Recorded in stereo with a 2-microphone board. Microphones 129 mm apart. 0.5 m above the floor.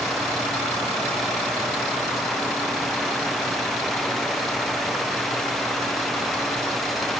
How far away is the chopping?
I don't hear chopping.